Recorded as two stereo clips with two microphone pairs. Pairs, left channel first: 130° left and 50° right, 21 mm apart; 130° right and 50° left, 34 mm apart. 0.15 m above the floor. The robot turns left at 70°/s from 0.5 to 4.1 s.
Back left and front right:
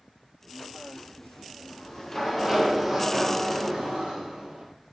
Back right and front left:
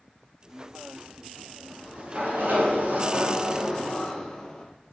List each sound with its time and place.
1.6 s a sliding door: 115° left, 3.5 m; by 4.6 s 55° right, 3.5 m